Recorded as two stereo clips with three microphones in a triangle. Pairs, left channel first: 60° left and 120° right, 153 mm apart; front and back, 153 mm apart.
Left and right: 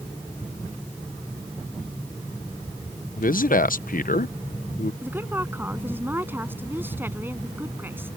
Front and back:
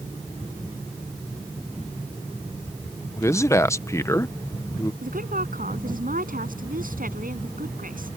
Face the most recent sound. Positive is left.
turn(degrees=165)